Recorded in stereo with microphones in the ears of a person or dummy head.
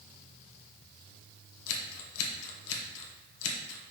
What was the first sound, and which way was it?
Scissors, 65° left (ahead or behind).